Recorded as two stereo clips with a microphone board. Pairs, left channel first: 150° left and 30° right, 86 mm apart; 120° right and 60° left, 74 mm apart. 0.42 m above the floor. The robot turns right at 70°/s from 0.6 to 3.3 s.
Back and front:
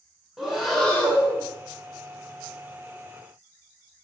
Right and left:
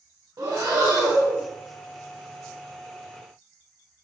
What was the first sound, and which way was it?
Breathing, 55° left.